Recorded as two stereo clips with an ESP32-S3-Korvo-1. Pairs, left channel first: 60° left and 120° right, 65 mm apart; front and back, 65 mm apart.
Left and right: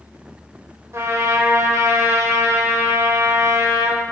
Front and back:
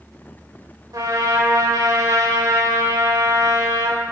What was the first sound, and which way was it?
A trumpet, 160° right.